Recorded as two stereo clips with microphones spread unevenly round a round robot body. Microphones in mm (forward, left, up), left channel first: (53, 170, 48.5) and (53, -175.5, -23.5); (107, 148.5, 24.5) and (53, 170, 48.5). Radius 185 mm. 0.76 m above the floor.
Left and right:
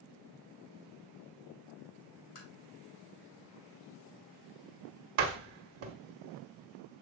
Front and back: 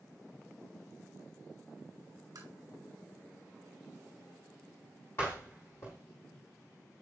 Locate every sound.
2.4 s tapping: 140° left, 5.5 m
5.2 s a door slam: 90° right, 1.4 m